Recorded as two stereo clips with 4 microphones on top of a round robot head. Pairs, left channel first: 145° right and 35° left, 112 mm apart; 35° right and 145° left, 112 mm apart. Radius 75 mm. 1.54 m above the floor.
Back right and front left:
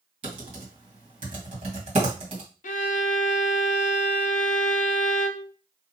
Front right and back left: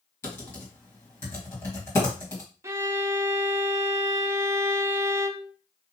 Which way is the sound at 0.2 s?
25° left.